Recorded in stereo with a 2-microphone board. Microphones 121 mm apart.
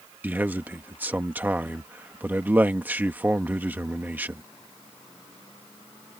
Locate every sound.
0.2 s a man speaking: 15° right (ahead or behind)